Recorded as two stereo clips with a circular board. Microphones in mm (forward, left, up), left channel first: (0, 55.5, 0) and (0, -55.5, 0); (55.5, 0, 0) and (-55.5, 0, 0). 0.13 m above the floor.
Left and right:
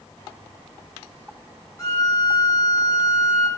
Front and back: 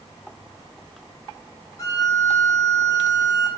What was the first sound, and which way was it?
A violin, 45° left.